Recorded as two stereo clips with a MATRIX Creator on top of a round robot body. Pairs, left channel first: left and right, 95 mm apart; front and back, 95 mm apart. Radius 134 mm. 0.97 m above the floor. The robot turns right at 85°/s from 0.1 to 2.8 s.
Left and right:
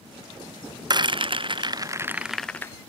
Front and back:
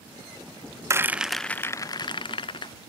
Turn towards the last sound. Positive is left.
turn(degrees=35)